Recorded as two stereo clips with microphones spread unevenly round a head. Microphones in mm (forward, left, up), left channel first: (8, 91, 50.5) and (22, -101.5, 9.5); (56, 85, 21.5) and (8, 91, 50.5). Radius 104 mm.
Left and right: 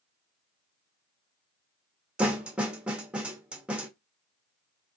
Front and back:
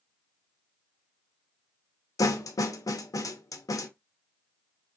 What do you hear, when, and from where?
2.2 s a snare drum: 5° left, 0.7 m